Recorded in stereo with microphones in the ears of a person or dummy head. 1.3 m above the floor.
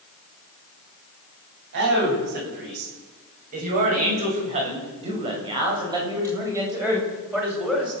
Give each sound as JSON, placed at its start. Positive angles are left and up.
{"t": 1.7, "sound": "a man speaking", "side_deg": -60, "distance_m": 10.0}